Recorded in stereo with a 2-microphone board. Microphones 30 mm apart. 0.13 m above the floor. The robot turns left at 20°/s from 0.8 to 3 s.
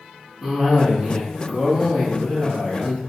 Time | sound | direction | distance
0.4 | a cough | 20° right (ahead or behind) | 1.1 m